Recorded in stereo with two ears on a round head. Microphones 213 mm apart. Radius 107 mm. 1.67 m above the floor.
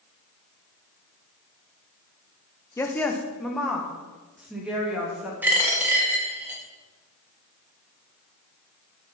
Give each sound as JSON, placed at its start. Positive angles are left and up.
{"t": 2.8, "sound": "a woman speaking", "side_deg": 10, "distance_m": 0.8}
{"t": 5.4, "sound": "a dropped coin", "side_deg": -5, "distance_m": 1.2}